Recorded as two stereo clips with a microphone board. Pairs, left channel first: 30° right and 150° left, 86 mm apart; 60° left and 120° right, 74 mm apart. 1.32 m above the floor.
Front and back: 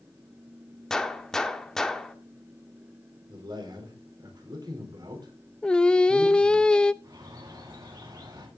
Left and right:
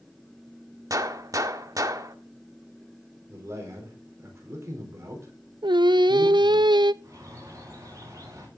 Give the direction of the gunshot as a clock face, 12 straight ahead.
4 o'clock.